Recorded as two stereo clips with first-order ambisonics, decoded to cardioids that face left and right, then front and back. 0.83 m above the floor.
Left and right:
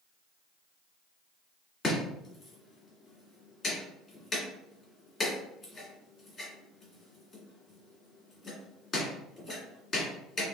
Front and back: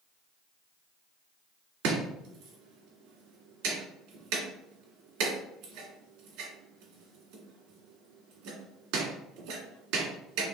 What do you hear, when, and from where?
1.8 s chopping: 155° left, 2.0 m